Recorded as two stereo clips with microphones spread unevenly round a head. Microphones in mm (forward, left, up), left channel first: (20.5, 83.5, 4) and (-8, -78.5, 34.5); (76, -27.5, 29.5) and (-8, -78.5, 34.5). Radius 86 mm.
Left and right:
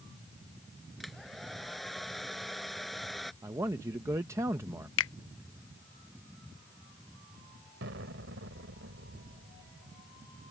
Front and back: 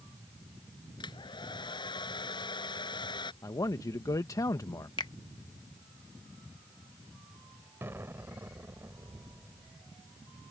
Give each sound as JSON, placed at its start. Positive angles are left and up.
{"t": 1.0, "sound": "a hair dryer", "azimuth_deg": -10}
{"t": 3.4, "sound": "a man speaking", "azimuth_deg": -25}
{"t": 5.0, "sound": "a finger snap", "azimuth_deg": 100}
{"t": 7.8, "sound": "an explosion", "azimuth_deg": -85}